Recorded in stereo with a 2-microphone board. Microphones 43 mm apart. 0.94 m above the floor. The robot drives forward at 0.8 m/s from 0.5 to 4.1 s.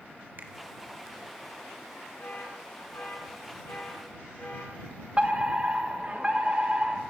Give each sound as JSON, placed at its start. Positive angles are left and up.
{"t": 0.4, "sound": "a finger snap", "side_deg": -55, "distance_m": 1.5}
{"t": 2.2, "sound": "an alarm", "side_deg": 65, "distance_m": 7.5}
{"t": 5.2, "sound": "a fire alarm", "side_deg": -30, "distance_m": 1.4}